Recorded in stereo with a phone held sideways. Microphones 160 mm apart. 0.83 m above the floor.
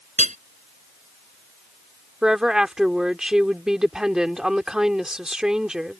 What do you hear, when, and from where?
0.2 s hammering: 50° right (ahead or behind)
2.2 s a woman speaking: 5° right (ahead or behind)